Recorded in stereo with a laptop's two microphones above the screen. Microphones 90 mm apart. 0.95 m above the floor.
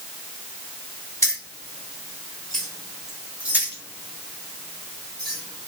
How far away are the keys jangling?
About 1.7 m.